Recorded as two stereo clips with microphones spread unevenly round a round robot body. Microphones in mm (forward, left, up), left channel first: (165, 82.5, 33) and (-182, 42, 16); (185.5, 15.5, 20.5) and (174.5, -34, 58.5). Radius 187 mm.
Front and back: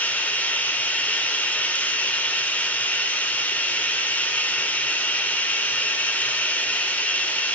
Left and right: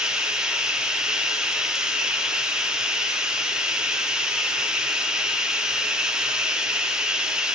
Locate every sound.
0.0 s running water: 95° left, 0.8 m